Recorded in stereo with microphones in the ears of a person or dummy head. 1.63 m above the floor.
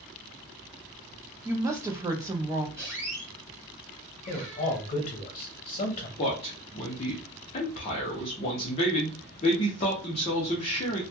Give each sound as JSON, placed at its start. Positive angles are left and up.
{"t": 1.4, "sound": "a woman speaking", "side_deg": -15, "distance_m": 0.6}
{"t": 2.8, "sound": "a squeak", "side_deg": 0, "distance_m": 1.9}
{"t": 4.3, "sound": "a man speaking", "side_deg": 45, "distance_m": 0.6}
{"t": 6.2, "sound": "a man speaking", "side_deg": 25, "distance_m": 0.6}